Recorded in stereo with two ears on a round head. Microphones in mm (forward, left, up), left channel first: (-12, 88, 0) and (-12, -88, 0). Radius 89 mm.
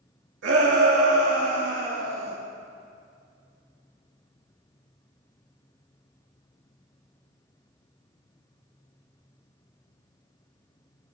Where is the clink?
No clink in this recording.